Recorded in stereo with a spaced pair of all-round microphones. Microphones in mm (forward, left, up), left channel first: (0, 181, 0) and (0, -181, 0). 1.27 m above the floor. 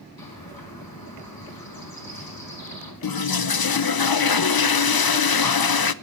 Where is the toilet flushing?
75° left (ahead or behind), 0.6 m.